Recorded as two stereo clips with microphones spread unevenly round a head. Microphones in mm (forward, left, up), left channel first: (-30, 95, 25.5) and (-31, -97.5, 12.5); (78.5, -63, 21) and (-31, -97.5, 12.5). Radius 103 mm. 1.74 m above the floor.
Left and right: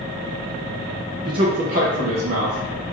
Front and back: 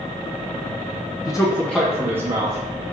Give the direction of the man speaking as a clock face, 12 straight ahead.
1 o'clock.